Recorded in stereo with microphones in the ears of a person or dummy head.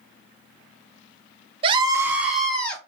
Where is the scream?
30° right (ahead or behind), 0.6 m; by 2.8 s 10° left (ahead or behind), 1.2 m.